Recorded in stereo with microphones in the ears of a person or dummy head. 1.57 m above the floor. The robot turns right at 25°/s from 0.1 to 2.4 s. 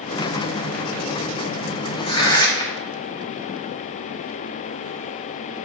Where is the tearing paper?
25° left (ahead or behind), 1.1 m; by 2.8 s 15° left (ahead or behind), 1.1 m.